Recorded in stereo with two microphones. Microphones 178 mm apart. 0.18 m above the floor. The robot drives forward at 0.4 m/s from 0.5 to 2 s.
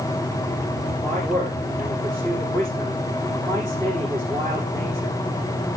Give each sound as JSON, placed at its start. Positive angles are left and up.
{"t": 1.0, "sound": "a man speaking", "side_deg": 15, "distance_m": 6.5}